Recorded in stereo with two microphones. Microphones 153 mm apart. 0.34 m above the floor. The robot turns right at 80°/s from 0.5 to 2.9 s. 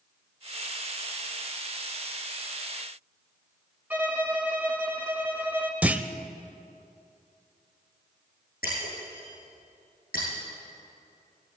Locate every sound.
3.9 s a violin: 10° right (ahead or behind), 1.3 m
5.8 s a clunk: 10° right (ahead or behind), 0.6 m
8.6 s breaking glass: 75° left (ahead or behind), 7 m